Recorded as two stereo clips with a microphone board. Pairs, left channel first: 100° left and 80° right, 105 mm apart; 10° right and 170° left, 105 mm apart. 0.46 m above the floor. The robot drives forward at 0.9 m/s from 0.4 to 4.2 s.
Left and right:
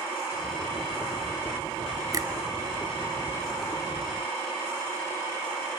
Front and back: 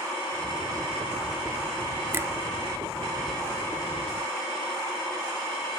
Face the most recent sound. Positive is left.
turn(degrees=-155)